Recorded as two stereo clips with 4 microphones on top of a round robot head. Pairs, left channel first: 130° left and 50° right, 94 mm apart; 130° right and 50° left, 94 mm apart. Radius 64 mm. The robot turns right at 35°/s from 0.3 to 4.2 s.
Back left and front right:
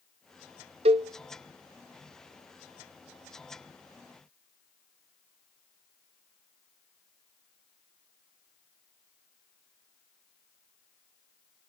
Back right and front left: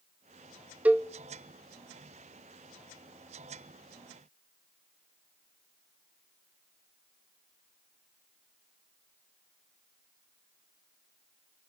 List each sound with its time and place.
0.8 s a cowbell: 25° right, 0.7 m; by 1.1 s 20° right, 0.7 m